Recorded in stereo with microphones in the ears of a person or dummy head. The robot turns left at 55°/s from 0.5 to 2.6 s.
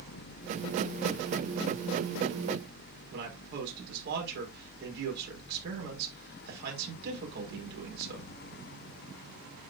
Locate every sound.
3.1 s a man speaking: 70° right (ahead or behind), 5 m